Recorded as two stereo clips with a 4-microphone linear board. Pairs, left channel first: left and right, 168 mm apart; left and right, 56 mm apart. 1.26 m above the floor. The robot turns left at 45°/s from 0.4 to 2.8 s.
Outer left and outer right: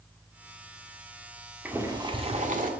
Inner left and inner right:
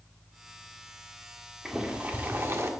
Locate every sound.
1.6 s boiling: 10° right, 1.6 m; by 2.7 s 55° right, 1.6 m